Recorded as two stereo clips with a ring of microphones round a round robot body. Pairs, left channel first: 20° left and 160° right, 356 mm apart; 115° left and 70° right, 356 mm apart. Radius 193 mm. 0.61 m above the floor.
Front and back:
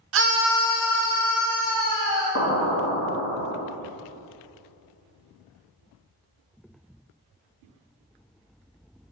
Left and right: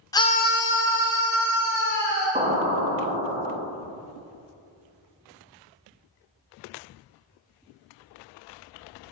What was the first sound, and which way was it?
A scream, 170° right.